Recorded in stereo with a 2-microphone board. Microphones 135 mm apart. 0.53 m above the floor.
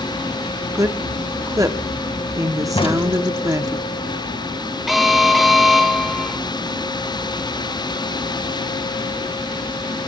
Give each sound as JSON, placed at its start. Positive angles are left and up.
{"t": 0.8, "sound": "a woman speaking", "side_deg": -25, "distance_m": 0.9}
{"t": 2.8, "sound": "a crack", "side_deg": 40, "distance_m": 2.0}
{"t": 4.9, "sound": "an alarm", "side_deg": 0, "distance_m": 1.6}